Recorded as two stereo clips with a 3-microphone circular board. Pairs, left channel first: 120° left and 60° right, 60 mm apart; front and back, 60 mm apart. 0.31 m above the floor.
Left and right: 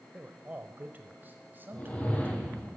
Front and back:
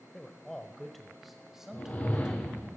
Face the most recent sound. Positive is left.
turn(degrees=60)